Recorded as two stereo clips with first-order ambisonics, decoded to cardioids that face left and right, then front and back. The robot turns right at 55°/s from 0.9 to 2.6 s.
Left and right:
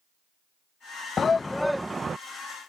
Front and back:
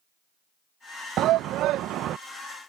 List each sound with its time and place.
1.2 s a shout: 150° left; by 2.2 s 155° right